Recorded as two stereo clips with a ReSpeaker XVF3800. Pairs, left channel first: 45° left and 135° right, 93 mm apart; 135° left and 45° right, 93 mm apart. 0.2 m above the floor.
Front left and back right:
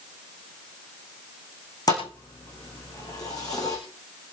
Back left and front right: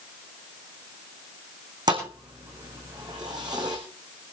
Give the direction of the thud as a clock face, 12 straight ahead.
12 o'clock.